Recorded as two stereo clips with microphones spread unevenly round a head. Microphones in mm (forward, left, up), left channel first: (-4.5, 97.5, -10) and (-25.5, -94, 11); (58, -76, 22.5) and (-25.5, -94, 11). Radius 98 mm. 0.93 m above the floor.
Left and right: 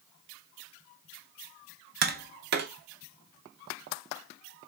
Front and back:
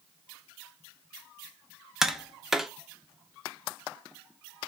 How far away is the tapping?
About 0.6 m.